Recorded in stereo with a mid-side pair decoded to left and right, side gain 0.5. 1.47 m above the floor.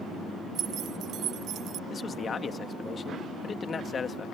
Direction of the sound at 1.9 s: 35° left.